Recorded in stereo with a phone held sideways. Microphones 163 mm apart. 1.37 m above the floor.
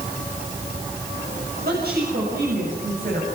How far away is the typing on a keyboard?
I don't hear typing on a keyboard.